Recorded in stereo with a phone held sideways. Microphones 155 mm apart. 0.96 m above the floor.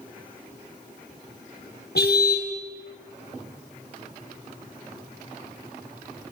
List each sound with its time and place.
1.9 s a car horn: 85° left, 3 m